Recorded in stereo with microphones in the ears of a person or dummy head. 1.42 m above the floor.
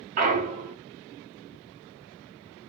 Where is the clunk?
40° right (ahead or behind), 0.8 m.